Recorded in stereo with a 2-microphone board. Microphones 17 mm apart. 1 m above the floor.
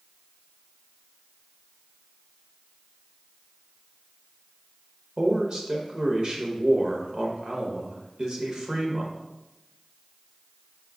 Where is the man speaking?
40° right (ahead or behind), 0.8 m.